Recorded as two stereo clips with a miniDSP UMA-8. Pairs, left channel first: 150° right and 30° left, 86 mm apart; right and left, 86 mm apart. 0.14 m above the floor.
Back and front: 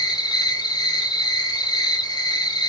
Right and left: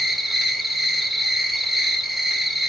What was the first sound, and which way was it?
An insect, straight behind.